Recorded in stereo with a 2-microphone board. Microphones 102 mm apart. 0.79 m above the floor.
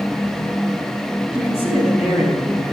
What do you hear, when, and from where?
1.3 s a man speaking: 70° left (ahead or behind), 7.5 m